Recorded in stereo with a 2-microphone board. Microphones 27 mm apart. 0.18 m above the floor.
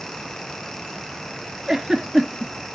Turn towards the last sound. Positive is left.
turn(degrees=-25)  # may be behind; listen again after turning